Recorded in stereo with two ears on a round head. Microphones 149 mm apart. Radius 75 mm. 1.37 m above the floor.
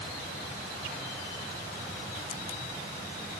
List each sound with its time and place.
Only background noise.